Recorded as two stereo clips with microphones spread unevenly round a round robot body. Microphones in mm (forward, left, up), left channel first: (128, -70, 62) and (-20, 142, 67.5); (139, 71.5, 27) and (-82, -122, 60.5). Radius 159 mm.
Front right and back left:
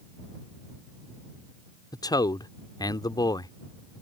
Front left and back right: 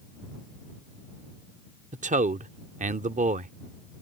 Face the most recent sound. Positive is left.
turn(degrees=-100)